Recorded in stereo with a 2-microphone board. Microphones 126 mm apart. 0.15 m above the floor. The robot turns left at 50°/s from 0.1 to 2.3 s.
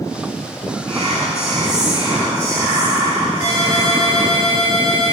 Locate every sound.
0.9 s whispering: 80° right, 3.5 m; by 4.4 s 150° right, 3.5 m
3.4 s a ringtone: 75° left (ahead or behind), 6 m